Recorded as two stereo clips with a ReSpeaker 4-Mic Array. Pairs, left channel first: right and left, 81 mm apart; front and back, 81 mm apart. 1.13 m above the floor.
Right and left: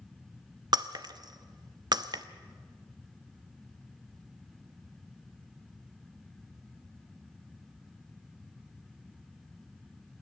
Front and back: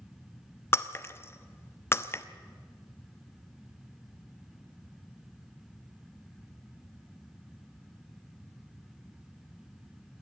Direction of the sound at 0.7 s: 60° left.